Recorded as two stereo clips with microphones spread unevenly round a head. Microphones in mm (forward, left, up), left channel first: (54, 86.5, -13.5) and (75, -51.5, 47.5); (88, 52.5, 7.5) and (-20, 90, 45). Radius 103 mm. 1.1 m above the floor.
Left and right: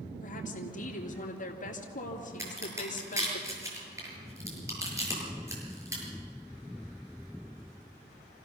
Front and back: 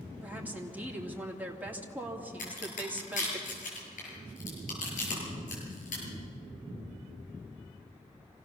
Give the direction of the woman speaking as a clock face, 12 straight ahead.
9 o'clock.